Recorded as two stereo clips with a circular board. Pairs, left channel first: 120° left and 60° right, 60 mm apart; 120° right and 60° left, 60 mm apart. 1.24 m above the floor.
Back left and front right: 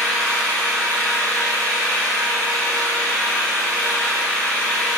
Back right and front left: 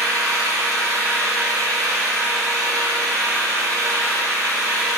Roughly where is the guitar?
I don't hear a guitar.